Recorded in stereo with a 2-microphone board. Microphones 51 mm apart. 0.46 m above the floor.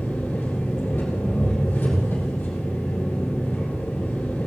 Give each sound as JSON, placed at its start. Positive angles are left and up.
{"t": 0.0, "sound": "an engine running", "side_deg": 35, "distance_m": 5.5}